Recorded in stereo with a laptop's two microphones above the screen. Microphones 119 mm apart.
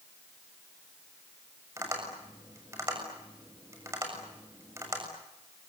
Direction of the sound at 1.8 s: 25° right (ahead or behind).